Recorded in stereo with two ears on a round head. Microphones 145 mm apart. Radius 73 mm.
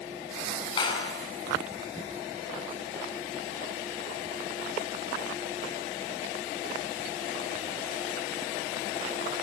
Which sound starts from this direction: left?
A clap, at 0.8 s.